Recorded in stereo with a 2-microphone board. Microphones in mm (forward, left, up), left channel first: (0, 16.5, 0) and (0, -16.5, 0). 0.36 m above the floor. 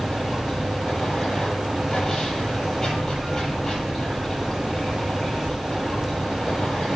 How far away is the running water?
About 8.5 m.